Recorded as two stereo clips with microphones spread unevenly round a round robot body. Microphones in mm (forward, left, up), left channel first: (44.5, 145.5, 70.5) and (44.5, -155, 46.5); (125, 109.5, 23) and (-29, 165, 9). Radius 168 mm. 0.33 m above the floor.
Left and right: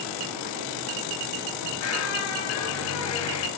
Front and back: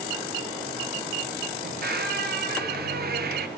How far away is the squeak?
About 2 m.